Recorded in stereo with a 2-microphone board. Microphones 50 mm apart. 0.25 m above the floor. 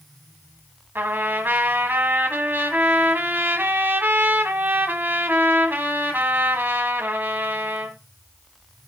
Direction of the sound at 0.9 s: 45° right (ahead or behind).